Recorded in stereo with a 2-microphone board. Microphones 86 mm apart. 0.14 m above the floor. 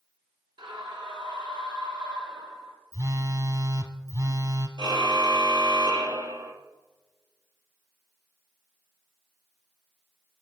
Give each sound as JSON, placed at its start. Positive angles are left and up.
{"t": 0.6, "sound": "a scream", "side_deg": -60, "distance_m": 3.5}
{"t": 2.9, "sound": "a phone buzzing", "side_deg": -45, "distance_m": 1.4}
{"t": 4.8, "sound": "a car horn", "side_deg": -60, "distance_m": 2.0}